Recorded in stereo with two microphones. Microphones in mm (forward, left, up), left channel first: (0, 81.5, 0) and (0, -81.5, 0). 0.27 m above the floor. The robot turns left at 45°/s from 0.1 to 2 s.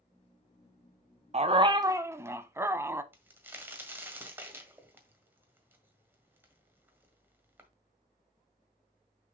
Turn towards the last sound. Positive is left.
turn(degrees=-10)  # may be behind; listen again after turning